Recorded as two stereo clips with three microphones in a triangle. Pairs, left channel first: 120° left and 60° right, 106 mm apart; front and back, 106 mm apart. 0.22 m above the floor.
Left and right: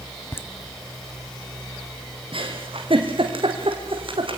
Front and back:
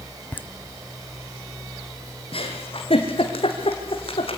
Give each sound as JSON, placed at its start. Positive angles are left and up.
{"t": 0.3, "sound": "laughter", "azimuth_deg": 65, "distance_m": 1.2}
{"t": 2.3, "sound": "a giggle", "azimuth_deg": -25, "distance_m": 3.0}